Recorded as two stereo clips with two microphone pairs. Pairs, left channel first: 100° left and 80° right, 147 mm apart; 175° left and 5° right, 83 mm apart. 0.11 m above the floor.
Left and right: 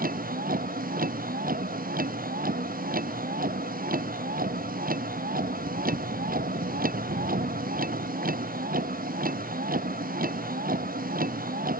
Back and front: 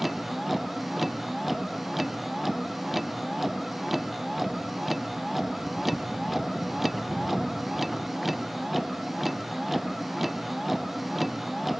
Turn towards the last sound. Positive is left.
turn(degrees=-95)